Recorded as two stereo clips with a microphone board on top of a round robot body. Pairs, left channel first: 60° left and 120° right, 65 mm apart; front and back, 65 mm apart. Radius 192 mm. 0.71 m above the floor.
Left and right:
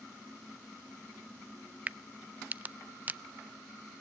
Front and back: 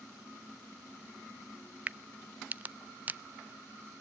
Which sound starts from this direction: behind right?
A crack, at 1.9 s.